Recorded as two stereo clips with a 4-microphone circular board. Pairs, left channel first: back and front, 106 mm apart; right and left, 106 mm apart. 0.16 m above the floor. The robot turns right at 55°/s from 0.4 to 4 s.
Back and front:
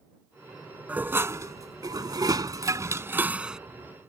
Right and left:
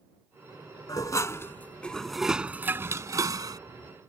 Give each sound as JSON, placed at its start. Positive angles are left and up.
{"t": 0.9, "sound": "dishes clattering", "azimuth_deg": -65}